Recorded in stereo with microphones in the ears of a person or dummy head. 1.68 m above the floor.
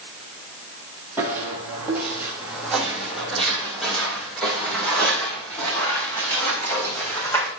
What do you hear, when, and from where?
1.2 s footsteps: 15° right (ahead or behind), 3.5 m; by 7.5 s 5° left (ahead or behind), 6 m